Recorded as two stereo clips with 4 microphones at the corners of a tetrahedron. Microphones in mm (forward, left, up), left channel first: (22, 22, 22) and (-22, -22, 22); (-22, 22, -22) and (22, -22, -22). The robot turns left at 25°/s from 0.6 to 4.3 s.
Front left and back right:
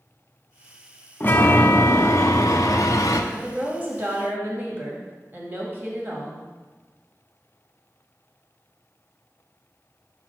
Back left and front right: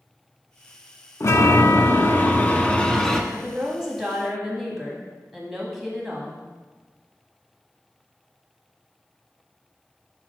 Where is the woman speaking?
105° right, 1.5 m; by 6.5 s 130° right, 1.5 m.